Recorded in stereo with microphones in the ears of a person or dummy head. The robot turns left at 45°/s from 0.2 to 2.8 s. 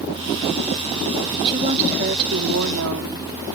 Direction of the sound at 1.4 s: 25° right.